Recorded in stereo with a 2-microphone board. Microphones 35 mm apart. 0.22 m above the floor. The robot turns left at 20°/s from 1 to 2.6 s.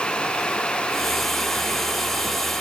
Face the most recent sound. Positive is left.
No sound to turn to.